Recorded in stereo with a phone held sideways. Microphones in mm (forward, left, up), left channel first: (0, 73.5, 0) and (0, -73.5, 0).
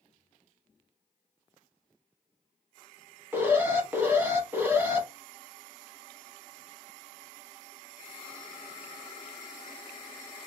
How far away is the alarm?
About 0.7 m.